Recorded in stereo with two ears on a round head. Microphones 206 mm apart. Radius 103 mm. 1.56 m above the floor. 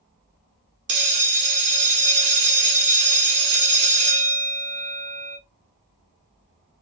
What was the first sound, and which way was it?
A bell, 50° right (ahead or behind).